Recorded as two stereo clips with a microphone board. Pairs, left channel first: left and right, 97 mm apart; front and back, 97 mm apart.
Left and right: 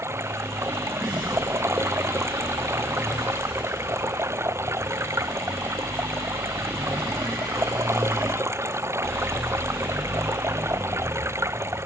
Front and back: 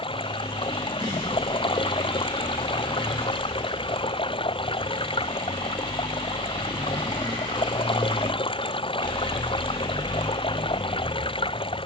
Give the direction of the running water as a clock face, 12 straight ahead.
1 o'clock.